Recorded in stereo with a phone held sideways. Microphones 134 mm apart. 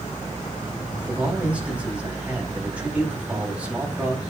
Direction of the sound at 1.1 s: 10° right (ahead or behind).